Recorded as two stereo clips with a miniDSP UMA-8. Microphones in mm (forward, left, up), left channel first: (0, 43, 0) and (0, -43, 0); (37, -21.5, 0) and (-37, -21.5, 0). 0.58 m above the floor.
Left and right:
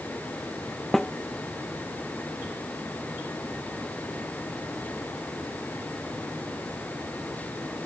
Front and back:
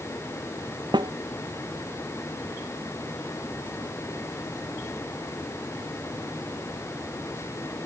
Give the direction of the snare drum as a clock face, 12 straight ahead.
6 o'clock.